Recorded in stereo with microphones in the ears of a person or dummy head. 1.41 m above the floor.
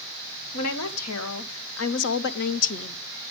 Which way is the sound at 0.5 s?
75° left (ahead or behind).